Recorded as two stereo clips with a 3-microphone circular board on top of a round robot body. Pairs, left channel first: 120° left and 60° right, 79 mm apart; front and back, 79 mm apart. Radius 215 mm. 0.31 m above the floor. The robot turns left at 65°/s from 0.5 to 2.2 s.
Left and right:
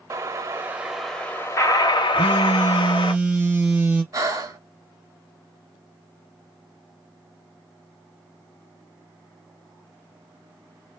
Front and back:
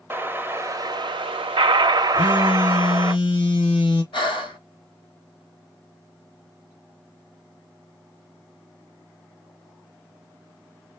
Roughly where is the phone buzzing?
Ahead.